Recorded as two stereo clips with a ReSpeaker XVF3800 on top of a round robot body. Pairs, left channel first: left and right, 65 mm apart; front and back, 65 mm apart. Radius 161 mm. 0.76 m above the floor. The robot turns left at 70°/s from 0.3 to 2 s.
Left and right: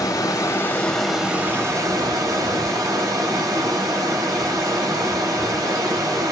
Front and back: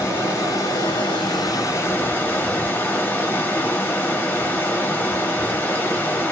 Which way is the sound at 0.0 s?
55° left.